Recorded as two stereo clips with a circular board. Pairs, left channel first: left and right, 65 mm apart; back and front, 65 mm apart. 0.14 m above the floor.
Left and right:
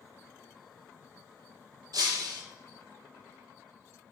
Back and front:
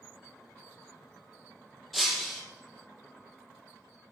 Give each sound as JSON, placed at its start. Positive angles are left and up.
{"t": 1.9, "sound": "breaking glass", "azimuth_deg": -90, "distance_m": 3.0}